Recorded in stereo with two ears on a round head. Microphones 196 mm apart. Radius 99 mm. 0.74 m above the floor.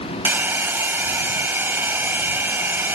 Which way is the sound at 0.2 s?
10° right (ahead or behind).